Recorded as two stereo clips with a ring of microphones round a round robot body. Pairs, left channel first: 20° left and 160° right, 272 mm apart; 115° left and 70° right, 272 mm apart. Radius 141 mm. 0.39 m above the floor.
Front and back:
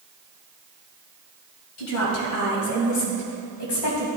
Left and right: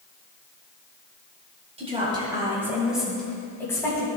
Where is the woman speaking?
Straight ahead, 2 m; by 4.1 s 35° left, 2.5 m.